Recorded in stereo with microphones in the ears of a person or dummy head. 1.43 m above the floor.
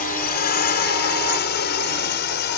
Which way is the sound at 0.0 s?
45° left (ahead or behind).